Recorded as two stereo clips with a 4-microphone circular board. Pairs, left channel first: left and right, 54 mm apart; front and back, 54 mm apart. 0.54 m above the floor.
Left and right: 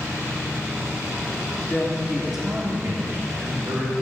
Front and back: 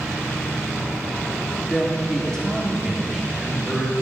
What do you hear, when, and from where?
1.7 s a man speaking: 60° left, 1.2 m; by 3.9 s 95° right, 2 m